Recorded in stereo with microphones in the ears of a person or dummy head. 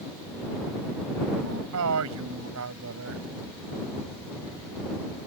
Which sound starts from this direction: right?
A man speaking, at 1.4 s.